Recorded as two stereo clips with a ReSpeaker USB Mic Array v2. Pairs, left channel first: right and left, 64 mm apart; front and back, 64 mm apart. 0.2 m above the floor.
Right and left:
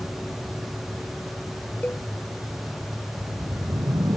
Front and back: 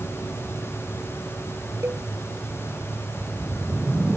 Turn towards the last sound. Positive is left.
turn(degrees=100)